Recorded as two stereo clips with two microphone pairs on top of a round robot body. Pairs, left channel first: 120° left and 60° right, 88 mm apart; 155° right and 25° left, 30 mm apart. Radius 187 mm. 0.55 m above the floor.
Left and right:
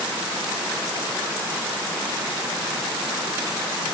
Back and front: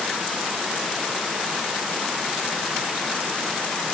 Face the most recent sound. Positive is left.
No sound to turn to.